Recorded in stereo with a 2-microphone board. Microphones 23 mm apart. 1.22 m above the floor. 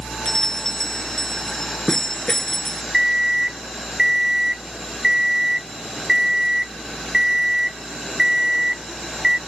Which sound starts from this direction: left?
A bell, at 0.2 s.